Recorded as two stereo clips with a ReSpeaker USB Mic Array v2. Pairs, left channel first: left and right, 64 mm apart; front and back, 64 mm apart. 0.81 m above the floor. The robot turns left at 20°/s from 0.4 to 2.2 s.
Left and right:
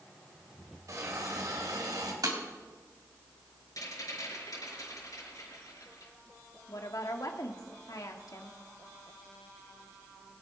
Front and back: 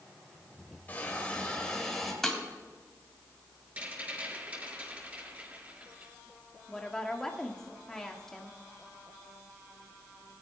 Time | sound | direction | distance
0.9 | a hiss | 60° right | 2.5 m
2.2 | breaking glass | 85° right | 2.5 m
3.8 | a rattle | 110° left | 6.5 m
6.7 | a woman speaking | 80° left | 1.6 m